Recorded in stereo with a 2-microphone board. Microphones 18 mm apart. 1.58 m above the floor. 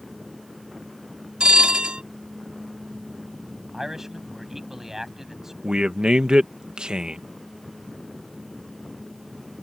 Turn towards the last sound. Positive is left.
turn(degrees=-45)  # may be behind; listen again after turning